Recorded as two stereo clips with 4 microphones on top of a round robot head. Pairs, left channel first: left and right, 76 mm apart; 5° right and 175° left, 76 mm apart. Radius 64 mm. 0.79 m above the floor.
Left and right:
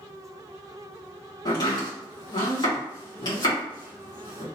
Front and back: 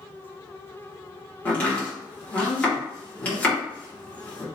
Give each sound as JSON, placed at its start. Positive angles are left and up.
{"t": 1.4, "sound": "chopping", "azimuth_deg": 65, "distance_m": 2.0}